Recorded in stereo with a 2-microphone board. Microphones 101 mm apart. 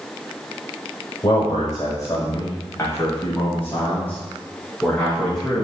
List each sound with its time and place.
1.2 s a man speaking: 45° left (ahead or behind), 1.4 m; by 5.6 s 5° left (ahead or behind), 3.5 m